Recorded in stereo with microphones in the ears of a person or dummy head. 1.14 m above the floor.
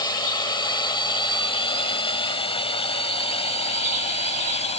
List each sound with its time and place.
0.0 s a drone: 20° left (ahead or behind); by 4.8 s 30° left (ahead or behind)